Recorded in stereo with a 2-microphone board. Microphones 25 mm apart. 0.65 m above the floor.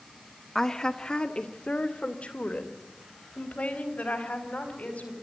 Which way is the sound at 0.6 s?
20° left (ahead or behind).